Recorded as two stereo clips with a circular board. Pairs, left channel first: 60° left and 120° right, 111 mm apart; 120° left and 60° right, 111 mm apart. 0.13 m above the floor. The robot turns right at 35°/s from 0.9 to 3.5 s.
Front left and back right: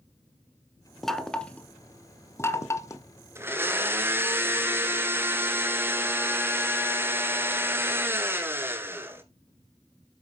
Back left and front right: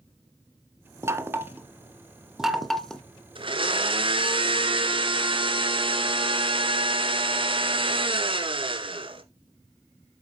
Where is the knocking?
25° right, 0.8 m; by 3.0 s 45° left, 0.8 m.